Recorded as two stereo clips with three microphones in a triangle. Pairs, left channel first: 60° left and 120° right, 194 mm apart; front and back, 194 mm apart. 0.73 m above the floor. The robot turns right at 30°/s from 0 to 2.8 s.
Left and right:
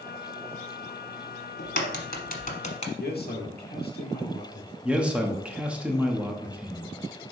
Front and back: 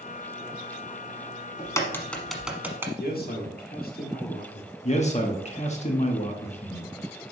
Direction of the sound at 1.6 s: 70° left.